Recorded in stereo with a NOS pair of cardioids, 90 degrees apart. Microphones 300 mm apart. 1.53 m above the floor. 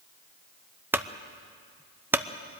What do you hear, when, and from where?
0.9 s a clunk: 5° right, 0.8 m